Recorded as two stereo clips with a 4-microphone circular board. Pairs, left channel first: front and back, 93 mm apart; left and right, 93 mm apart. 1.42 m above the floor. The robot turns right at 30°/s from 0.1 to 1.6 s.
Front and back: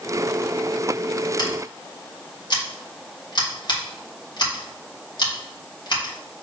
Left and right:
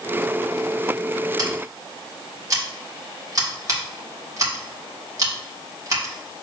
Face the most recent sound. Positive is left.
turn(degrees=-40)